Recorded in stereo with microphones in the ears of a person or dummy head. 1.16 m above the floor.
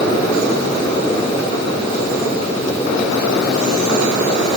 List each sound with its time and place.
Only background noise.